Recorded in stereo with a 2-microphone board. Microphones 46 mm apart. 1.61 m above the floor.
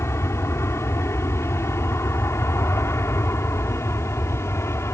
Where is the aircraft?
70° left (ahead or behind).